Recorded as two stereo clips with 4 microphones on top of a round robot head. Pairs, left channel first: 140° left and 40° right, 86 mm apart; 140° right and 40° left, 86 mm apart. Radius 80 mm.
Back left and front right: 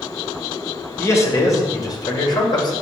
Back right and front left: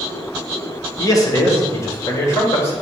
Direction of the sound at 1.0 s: 170° right.